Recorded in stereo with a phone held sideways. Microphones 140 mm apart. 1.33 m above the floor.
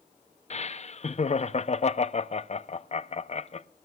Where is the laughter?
50° left (ahead or behind), 0.6 m.